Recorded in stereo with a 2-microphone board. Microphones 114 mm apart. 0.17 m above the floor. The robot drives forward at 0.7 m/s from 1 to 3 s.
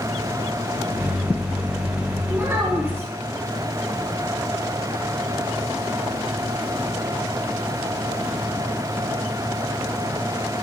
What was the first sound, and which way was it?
A child speaking, 20° right (ahead or behind).